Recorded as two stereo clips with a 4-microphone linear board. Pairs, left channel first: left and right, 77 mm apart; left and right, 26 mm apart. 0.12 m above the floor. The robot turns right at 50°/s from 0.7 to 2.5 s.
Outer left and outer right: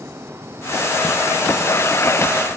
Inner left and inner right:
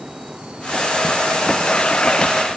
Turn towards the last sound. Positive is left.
No sound to turn to.